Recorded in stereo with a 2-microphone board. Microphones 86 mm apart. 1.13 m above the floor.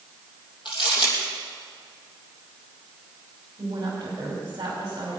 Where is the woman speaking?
50° right (ahead or behind), 4.5 m.